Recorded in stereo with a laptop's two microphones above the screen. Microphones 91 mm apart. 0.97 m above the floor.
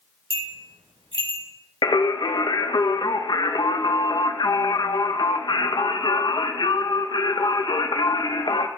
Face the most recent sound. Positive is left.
turn(degrees=55)  # may be behind; listen again after turning